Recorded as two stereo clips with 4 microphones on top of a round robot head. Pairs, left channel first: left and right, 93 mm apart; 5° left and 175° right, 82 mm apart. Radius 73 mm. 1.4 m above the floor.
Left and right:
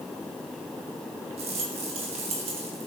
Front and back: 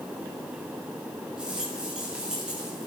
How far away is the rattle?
About 2.5 m.